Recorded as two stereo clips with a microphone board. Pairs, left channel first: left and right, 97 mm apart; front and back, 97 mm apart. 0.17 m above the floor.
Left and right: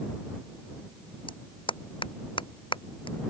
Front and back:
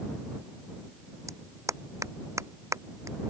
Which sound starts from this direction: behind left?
A clap, at 1.3 s.